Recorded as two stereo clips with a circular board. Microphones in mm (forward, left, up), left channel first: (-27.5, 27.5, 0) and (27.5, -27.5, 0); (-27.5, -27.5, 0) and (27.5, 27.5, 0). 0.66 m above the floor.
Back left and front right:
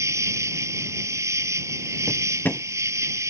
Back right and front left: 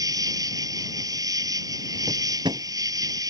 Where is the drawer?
70° left.